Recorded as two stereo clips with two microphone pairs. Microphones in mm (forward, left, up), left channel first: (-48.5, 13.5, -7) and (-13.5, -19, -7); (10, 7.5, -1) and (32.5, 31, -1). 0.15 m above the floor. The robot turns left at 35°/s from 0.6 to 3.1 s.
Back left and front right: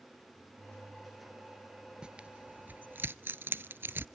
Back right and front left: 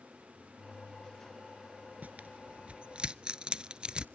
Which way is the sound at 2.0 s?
30° left.